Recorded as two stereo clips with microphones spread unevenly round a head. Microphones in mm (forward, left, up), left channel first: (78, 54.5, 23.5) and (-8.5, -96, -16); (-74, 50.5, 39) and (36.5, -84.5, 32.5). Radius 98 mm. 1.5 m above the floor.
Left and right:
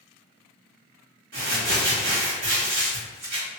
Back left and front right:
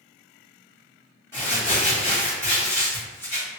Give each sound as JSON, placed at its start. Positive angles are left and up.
{"t": 1.3, "sound": "crumpling", "azimuth_deg": -150, "distance_m": 1.5}